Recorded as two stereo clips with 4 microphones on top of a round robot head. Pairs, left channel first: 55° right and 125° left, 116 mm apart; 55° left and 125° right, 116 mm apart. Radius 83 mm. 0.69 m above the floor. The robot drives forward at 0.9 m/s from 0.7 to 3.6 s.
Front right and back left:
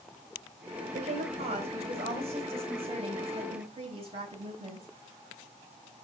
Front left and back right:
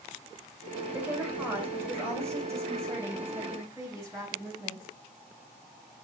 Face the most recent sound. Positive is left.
turn(degrees=170)